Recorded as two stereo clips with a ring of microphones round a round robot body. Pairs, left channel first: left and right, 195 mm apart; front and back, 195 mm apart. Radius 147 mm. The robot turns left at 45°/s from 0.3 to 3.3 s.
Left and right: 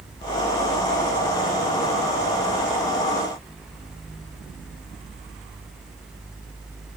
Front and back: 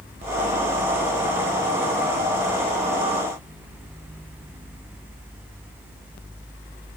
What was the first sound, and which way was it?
Only background noise.